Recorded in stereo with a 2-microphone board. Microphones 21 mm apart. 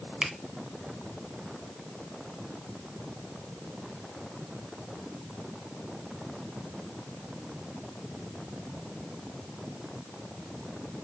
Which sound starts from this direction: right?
A finger snap, at 0.2 s.